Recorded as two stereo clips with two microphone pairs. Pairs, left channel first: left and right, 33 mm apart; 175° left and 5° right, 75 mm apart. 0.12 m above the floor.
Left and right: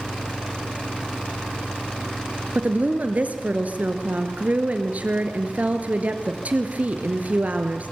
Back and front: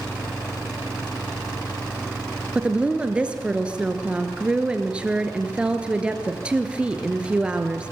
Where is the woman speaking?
80° right, 1.9 m.